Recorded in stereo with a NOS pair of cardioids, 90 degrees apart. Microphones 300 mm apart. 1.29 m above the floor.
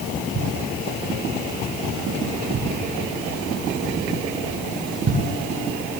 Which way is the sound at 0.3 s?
40° right.